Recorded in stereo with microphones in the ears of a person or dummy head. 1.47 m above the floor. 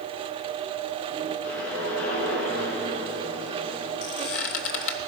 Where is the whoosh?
80° left, 6 m.